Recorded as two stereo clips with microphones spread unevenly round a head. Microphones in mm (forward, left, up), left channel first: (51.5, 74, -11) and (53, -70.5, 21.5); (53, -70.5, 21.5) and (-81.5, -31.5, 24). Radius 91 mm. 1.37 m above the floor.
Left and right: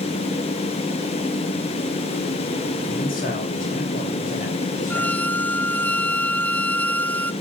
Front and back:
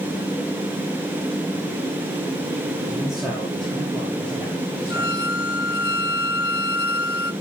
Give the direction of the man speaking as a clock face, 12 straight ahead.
9 o'clock.